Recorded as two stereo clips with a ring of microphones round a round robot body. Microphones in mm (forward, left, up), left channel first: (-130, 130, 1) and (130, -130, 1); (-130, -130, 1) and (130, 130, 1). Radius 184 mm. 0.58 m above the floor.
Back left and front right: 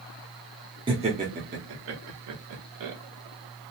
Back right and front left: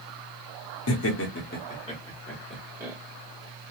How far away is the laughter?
About 1.0 m.